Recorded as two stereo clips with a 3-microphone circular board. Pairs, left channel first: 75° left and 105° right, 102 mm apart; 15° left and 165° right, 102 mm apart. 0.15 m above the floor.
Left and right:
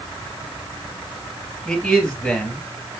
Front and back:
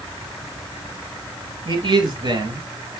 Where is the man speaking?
160° left, 3 m.